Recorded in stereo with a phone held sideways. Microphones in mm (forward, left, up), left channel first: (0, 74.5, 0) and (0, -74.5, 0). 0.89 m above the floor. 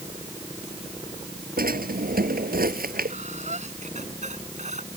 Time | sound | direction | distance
1.6 | a drawer | 85° right | ?
3.1 | breathing | 50° right (ahead or behind) | ?